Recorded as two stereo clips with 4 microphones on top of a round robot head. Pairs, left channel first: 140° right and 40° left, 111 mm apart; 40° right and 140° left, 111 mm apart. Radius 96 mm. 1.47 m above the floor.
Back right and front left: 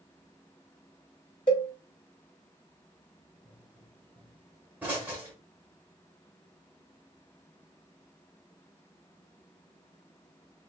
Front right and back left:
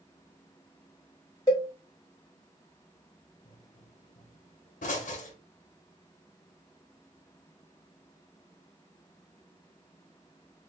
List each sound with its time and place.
1.5 s a cowbell: 95° right, 1.1 m
3.5 s a pop: 35° right, 1.0 m